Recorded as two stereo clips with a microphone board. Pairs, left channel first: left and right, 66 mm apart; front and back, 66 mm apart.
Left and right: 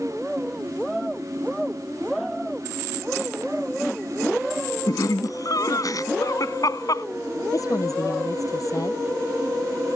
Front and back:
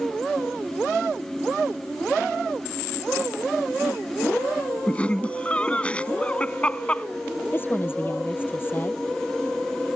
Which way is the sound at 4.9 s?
70° left.